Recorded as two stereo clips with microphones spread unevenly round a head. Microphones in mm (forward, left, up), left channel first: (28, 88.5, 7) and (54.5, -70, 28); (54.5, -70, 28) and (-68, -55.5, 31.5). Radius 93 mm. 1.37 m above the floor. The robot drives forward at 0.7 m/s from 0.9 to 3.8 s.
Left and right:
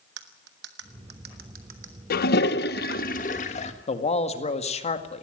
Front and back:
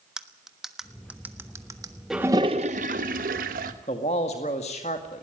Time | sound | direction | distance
0.2 | cutlery clinking | 100° right | 1.3 m
2.1 | a toilet flushing | 85° left | 0.6 m
3.9 | a man speaking | 50° left | 1.9 m